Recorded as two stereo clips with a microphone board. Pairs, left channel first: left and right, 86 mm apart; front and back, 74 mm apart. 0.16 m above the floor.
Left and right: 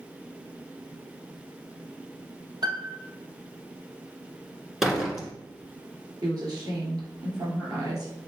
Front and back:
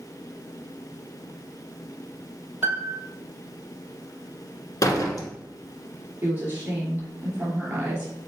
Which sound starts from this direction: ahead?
A door slam, at 4.8 s.